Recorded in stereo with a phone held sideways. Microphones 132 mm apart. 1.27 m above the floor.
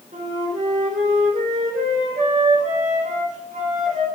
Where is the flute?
70° right (ahead or behind), 3 m.